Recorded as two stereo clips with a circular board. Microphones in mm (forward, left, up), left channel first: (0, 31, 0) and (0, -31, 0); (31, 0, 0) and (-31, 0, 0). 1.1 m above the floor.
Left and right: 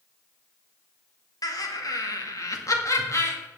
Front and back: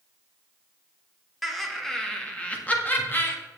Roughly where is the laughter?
Left.